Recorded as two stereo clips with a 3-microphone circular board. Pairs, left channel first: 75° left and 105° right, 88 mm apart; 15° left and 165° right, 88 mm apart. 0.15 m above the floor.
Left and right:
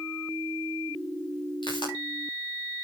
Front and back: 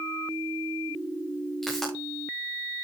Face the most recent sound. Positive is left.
turn(degrees=100)